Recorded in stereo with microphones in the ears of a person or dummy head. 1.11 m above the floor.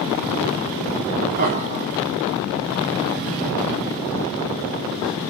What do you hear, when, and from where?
1.4 s laughter: 50° right (ahead or behind), 1.9 m; by 5.2 s 20° left (ahead or behind), 5.5 m